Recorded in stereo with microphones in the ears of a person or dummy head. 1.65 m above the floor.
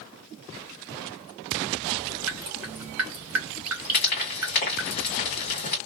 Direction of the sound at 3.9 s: 35° left (ahead or behind).